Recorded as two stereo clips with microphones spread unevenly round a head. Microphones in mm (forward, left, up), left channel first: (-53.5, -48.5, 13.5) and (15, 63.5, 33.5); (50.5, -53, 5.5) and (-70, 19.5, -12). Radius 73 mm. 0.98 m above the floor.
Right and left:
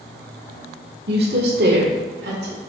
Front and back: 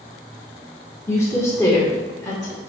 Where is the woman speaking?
45° left, 2 m; by 2.6 s 40° left, 3 m.